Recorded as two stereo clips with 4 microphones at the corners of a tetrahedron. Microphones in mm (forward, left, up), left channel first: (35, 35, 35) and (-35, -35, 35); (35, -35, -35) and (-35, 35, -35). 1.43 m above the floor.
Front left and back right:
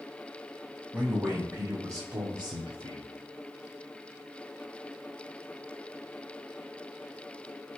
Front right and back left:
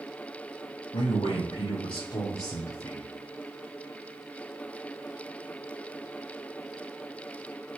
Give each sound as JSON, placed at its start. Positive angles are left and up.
{"t": 0.9, "sound": "a man speaking", "azimuth_deg": -65, "distance_m": 1.2}